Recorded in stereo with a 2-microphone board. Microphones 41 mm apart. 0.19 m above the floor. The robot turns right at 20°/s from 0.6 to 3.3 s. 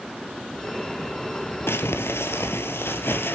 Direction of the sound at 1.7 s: 80° left.